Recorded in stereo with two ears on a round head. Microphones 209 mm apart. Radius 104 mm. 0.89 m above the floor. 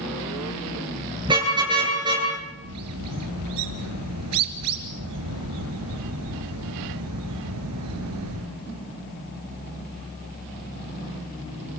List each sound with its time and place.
1.2 s a car horn: 20° right (ahead or behind), 9 m
2.6 s a bird: 75° right (ahead or behind), 2.5 m